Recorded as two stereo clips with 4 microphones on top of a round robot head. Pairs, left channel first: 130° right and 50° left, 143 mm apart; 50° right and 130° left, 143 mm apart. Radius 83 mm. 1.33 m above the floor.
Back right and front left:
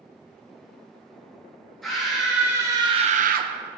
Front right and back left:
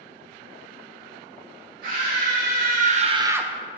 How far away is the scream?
About 2 m.